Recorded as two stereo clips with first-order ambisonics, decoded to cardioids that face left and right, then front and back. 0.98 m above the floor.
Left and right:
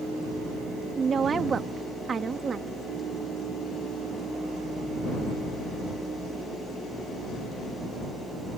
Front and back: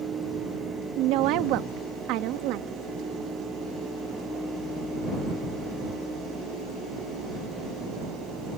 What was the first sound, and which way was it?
A woman speaking, 160° right.